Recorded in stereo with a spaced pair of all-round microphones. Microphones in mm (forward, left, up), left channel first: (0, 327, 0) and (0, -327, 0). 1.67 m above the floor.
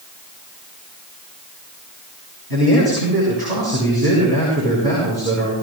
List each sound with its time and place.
2.5 s a man speaking: 40° right (ahead or behind), 6.5 m